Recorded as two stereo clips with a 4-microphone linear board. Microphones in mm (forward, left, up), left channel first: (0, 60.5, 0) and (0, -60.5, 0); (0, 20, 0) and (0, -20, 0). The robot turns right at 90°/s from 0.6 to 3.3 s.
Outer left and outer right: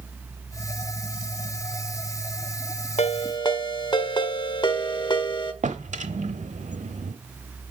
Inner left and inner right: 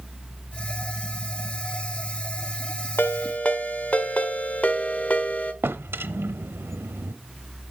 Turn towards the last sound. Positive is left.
turn(degrees=-80)